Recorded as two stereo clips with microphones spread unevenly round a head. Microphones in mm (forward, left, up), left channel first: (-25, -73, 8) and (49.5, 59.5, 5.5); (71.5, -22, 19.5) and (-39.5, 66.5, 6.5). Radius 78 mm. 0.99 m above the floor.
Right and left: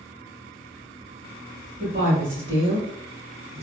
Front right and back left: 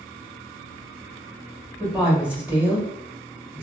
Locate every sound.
1.8 s a woman speaking: 65° left, 1.8 m